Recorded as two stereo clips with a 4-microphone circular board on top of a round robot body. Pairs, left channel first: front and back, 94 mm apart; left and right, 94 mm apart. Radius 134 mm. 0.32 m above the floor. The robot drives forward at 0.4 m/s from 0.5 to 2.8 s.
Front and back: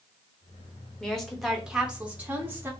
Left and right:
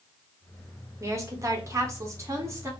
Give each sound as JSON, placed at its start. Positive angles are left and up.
{"t": 1.0, "sound": "a woman speaking", "azimuth_deg": -75, "distance_m": 1.3}